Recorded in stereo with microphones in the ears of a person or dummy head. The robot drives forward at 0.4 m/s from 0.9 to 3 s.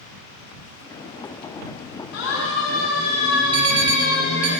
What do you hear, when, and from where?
2.1 s a siren: 85° left, 4.5 m; by 4.5 s 65° left (ahead or behind), 7 m
3.5 s an alarm: 80° right, 1.7 m